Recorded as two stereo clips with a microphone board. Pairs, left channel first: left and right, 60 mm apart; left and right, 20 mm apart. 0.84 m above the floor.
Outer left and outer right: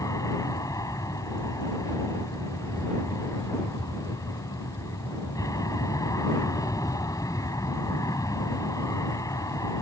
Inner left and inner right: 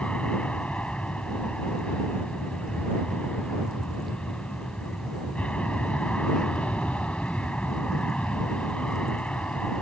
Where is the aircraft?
75° left (ahead or behind).